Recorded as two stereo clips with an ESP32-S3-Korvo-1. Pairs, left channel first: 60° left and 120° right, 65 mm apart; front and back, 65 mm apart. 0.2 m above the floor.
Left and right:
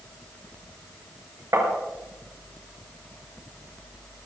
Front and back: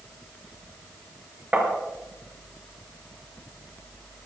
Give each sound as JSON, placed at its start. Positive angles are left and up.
{"t": 1.5, "sound": "tapping", "azimuth_deg": -120, "distance_m": 3.5}